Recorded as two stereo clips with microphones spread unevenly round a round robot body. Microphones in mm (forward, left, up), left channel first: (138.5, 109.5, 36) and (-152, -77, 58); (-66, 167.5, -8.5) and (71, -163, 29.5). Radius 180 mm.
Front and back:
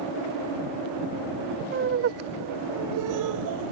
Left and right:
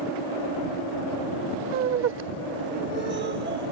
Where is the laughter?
110° right; by 3.7 s 135° right.